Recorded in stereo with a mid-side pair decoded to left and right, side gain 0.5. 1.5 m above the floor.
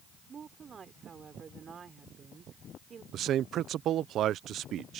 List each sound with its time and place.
0.3 s a woman speaking: 40° right
3.1 s a man speaking: 65° right